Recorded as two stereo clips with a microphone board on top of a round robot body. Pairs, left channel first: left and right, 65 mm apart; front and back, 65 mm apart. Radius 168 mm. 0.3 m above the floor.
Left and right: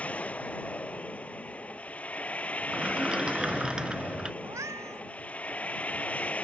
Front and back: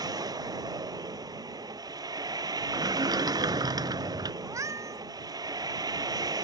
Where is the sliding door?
170° right.